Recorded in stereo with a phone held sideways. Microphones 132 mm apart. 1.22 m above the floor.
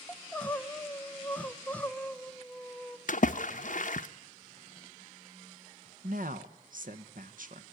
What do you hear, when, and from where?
0.1 s crying: 10° left (ahead or behind), 1.0 m
3.1 s a splash: 65° left (ahead or behind), 0.7 m
6.0 s a woman speaking: 75° right (ahead or behind), 1.2 m